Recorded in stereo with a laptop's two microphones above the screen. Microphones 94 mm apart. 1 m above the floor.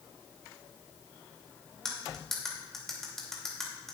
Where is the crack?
No crack in this recording.